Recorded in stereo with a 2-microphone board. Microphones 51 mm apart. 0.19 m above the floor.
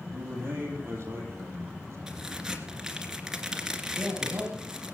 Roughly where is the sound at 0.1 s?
Right.